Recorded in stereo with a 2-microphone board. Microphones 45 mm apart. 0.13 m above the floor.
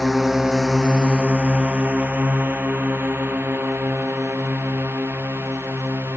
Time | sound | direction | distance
0.0 | a drone | centre (ahead or behind) | ?